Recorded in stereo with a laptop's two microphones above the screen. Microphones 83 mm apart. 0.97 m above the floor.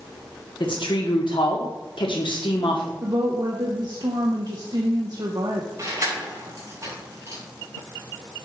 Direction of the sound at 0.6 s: 80° left.